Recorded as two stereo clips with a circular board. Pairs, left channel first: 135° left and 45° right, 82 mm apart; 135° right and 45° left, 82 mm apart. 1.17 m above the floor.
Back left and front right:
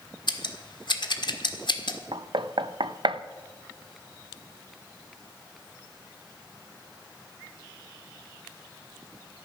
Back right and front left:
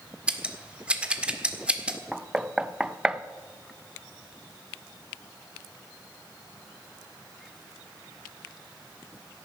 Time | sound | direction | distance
0.3 | scissors | 120° left | 1.5 m
2.1 | knocking | 35° right | 0.6 m